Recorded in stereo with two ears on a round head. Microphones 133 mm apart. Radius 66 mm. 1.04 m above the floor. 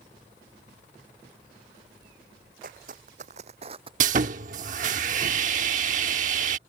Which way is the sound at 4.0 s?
55° right (ahead or behind).